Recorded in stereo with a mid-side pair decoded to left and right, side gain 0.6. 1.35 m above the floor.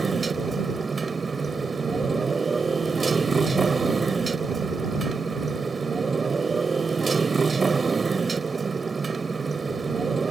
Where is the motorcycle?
20° right.